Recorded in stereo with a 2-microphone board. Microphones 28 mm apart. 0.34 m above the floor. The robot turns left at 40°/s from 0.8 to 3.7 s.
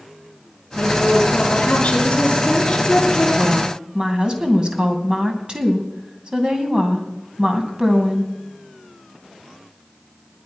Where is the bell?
No bell in this recording.